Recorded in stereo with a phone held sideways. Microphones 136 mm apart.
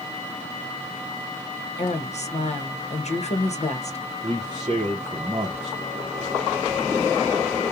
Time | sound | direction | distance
1.8 | a woman speaking | 55° left (ahead or behind) | 0.9 m
4.2 | a man speaking | 35° right (ahead or behind) | 0.7 m